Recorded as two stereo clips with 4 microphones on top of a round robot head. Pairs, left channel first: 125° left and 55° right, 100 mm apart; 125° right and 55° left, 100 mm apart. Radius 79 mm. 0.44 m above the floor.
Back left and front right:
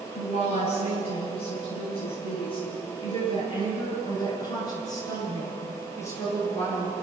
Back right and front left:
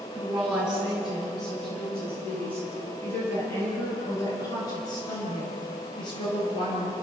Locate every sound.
0.1 s a woman speaking: 135° left, 6.5 m; by 6.9 s 170° right, 9.5 m